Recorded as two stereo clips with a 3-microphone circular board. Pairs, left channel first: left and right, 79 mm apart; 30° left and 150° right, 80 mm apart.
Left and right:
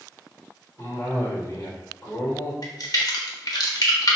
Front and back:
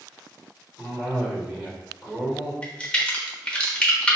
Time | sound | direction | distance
0.8 | a cough | 130° left | 1.5 m
2.6 | a crack | 105° left | 0.8 m